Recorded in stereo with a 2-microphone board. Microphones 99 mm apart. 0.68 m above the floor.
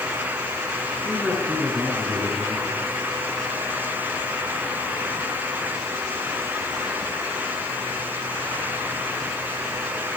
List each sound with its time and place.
1.1 s a man speaking: 15° left (ahead or behind), 9 m